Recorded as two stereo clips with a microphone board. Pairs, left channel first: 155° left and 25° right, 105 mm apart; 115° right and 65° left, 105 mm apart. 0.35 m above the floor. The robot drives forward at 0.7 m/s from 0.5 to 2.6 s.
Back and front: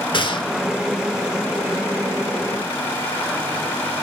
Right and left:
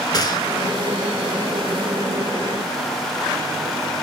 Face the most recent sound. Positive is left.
turn(degrees=-170)